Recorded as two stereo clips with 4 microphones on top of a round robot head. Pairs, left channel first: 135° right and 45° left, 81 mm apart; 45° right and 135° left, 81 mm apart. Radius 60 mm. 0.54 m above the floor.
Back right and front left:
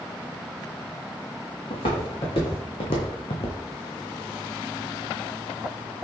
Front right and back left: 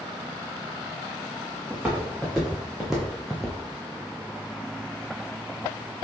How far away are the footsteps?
About 2 m.